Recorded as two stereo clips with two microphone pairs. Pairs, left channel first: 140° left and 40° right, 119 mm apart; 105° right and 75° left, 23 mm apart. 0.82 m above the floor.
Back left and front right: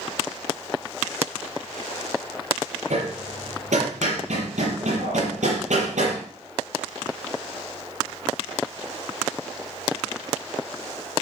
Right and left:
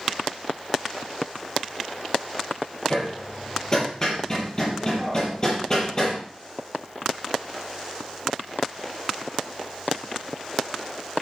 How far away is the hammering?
About 6 m.